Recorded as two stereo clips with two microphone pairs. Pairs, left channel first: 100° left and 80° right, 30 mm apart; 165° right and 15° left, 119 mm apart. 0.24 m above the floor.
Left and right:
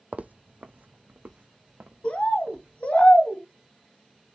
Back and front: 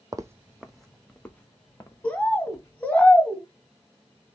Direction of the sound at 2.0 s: 120° left.